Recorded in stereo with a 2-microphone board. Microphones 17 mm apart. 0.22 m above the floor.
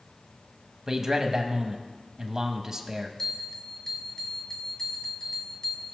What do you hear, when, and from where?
0.9 s a man speaking: 25° right (ahead or behind), 1.1 m
3.2 s a bell: 35° left (ahead or behind), 1.6 m